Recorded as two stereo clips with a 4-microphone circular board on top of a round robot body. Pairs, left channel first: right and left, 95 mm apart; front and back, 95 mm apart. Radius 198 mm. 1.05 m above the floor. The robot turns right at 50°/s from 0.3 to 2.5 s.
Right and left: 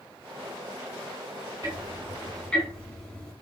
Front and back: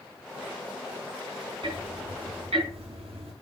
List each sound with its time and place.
1.6 s ticking: 150° left, 5 m; by 3.3 s 170° right, 5 m